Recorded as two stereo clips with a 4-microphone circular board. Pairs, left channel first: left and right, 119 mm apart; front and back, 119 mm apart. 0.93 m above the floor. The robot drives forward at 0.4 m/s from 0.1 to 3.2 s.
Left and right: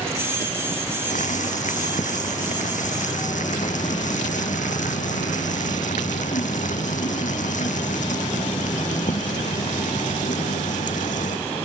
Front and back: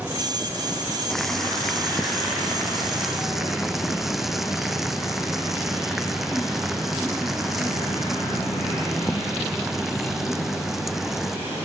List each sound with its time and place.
1.1 s boiling: 85° left; by 11.4 s 90° left